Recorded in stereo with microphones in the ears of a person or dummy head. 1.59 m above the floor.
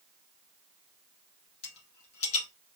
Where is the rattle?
35° left (ahead or behind), 2 m.